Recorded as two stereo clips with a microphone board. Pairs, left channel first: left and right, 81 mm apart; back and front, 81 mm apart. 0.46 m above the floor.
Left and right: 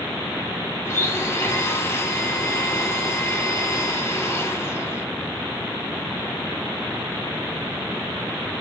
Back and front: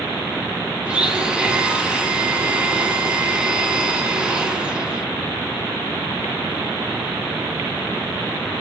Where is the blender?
70° left, 1.0 m.